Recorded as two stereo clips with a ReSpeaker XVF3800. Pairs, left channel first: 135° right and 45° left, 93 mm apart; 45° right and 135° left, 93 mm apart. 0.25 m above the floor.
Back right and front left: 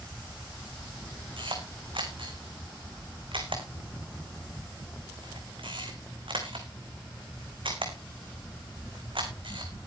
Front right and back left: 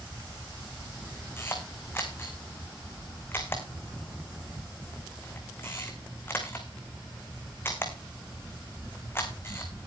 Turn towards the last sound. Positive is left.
turn(degrees=20)